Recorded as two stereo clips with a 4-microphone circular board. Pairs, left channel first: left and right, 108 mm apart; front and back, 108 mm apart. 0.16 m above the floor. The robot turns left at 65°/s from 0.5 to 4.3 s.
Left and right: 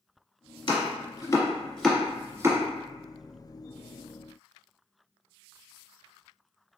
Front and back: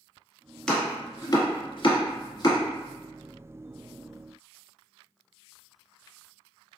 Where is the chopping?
80° left, 1.2 m; by 2.6 s 45° right, 1.2 m.